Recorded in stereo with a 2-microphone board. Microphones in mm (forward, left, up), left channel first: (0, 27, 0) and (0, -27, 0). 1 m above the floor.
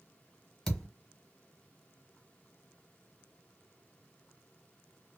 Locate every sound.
0.7 s a thud: 10° left (ahead or behind), 1.3 m